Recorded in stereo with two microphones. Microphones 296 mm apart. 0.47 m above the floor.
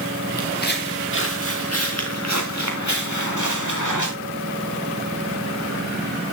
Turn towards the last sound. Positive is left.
turn(degrees=80)